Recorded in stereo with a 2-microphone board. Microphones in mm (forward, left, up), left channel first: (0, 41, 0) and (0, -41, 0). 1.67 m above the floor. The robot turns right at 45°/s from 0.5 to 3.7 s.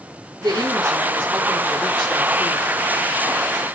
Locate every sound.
0.4 s a woman speaking: 45° right, 3.5 m; by 2.7 s 50° left, 3.5 m